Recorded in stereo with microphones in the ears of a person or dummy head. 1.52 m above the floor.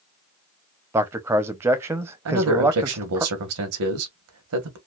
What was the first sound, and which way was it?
A man speaking, 15° right (ahead or behind).